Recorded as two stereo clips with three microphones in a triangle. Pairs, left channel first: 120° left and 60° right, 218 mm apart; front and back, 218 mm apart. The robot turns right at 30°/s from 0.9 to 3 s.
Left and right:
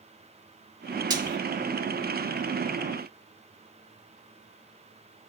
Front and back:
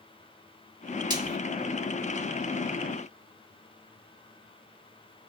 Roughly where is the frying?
Behind right.